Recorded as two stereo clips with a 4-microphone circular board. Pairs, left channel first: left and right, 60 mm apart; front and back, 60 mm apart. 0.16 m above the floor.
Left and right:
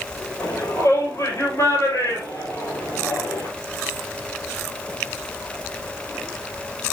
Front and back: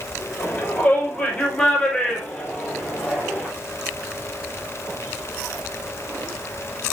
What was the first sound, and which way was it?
A shout, 70° left.